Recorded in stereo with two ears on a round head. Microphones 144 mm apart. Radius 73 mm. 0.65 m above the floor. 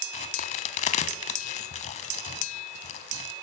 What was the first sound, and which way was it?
A crack, 40° left (ahead or behind).